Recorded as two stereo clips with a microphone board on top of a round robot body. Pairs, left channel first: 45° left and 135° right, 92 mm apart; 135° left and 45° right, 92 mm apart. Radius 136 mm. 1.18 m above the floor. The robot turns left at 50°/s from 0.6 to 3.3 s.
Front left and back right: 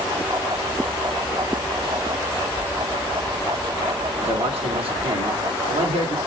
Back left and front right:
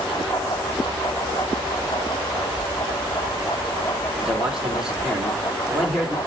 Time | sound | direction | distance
2.6 | a squeak | 155° right | 5 m
4.2 | a man speaking | 125° right | 3.5 m